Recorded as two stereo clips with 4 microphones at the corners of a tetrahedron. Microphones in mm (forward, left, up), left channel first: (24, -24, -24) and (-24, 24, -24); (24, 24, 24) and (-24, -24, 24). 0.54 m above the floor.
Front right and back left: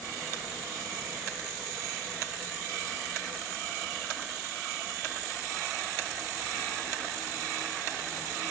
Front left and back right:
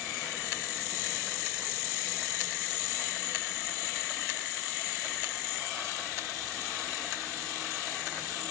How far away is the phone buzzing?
I don't hear a phone buzzing.